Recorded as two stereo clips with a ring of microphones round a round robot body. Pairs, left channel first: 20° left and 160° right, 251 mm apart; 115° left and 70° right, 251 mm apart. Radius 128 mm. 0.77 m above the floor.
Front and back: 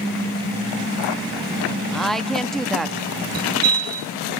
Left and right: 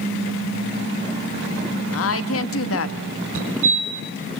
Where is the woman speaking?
110° left, 1.5 m.